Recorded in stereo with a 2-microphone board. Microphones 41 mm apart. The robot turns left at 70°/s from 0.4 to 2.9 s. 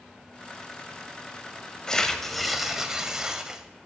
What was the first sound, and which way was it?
Tearing paper, 20° left (ahead or behind).